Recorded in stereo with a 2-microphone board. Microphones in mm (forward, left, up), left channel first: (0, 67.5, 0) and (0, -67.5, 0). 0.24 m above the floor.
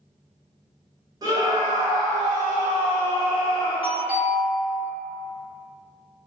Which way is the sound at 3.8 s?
15° right (ahead or behind).